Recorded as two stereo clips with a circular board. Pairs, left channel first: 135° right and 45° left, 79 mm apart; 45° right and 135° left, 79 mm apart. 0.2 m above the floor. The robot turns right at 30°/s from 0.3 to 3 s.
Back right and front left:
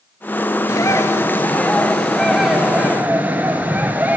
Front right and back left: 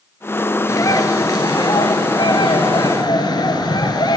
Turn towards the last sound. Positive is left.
turn(degrees=-25)